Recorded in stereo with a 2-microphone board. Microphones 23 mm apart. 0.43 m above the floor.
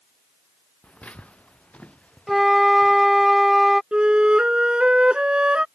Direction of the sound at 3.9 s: 50° right (ahead or behind).